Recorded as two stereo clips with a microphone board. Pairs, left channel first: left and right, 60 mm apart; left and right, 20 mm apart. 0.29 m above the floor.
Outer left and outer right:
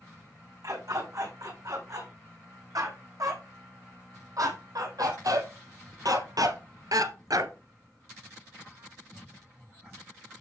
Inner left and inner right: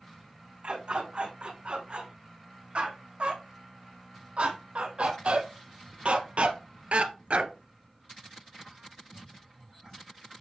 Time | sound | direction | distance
0.6 | a dog barking | 70° right (ahead or behind) | 7 m